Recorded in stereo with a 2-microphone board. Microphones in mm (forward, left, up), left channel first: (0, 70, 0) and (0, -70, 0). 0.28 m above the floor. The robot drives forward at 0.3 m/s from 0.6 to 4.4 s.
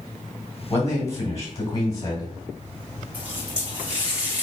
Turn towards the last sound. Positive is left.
turn(degrees=-10)  # may be behind; listen again after turning